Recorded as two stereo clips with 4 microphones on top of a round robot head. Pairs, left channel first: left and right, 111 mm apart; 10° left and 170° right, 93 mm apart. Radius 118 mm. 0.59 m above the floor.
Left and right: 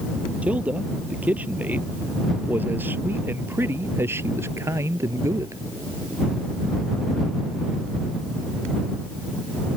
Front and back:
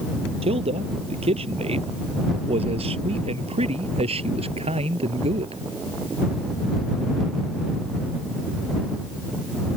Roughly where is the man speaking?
Behind.